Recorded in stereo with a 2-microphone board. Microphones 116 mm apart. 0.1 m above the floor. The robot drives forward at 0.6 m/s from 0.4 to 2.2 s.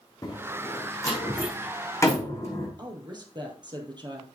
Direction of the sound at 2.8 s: 40° right (ahead or behind).